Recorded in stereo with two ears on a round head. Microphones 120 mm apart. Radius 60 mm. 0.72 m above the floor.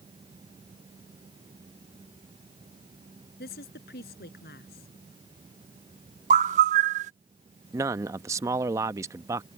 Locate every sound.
3.4 s a woman speaking: 85° left
6.3 s a bird: 60° right (ahead or behind)
7.7 s a man speaking: 25° right (ahead or behind)